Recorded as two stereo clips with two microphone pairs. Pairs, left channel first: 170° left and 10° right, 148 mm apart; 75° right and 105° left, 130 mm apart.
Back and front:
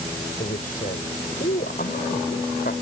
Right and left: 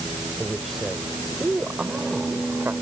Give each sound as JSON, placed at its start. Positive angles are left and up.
{"t": 0.4, "sound": "a man speaking", "azimuth_deg": -165}